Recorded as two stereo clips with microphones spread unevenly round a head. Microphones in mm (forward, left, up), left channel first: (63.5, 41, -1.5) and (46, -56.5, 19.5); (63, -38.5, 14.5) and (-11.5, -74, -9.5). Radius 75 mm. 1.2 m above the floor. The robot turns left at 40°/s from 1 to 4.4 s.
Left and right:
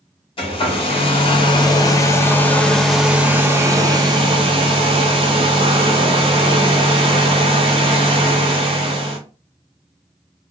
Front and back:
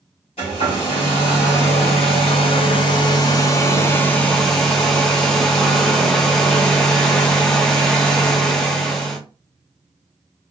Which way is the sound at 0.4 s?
70° left.